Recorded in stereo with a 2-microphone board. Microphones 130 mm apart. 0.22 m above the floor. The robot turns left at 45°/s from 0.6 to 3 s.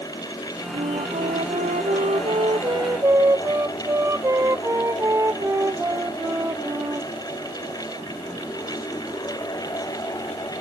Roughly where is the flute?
Ahead right.